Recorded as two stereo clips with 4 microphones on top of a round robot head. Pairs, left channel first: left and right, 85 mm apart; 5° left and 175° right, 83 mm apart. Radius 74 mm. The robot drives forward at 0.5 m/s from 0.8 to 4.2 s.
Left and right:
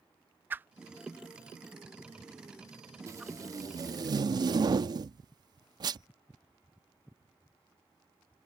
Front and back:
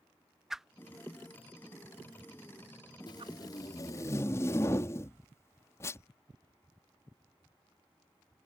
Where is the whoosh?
95° right; by 3.3 s 170° right.